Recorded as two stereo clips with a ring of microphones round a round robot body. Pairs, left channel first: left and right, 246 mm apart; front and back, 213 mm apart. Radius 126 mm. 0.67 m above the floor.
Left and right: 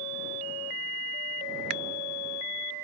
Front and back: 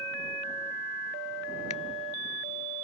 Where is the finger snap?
65° right.